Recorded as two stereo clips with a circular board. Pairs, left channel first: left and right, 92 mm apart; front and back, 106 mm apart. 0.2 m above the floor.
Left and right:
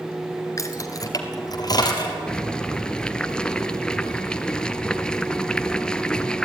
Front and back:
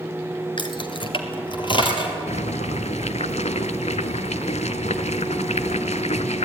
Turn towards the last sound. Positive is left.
turn(degrees=10)